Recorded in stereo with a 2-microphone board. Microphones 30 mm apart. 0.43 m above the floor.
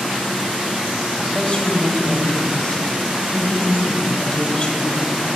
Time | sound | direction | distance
1.2 | a woman speaking | 35° left (ahead or behind) | 1.8 m